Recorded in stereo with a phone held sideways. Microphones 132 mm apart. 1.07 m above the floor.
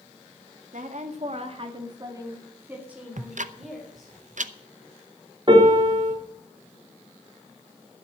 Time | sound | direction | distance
0.7 | a woman speaking | 75° right (ahead or behind) | 2.0 m
3.2 | ticking | 70° right (ahead or behind) | 0.7 m
5.5 | a piano | 35° right (ahead or behind) | 3.5 m